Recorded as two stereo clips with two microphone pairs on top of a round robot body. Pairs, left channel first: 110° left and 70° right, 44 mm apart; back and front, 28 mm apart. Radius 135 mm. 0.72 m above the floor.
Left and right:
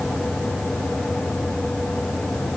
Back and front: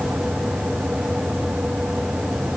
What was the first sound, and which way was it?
Only background noise.